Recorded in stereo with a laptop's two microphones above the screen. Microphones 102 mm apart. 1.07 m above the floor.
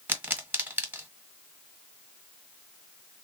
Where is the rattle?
No rattle in this recording.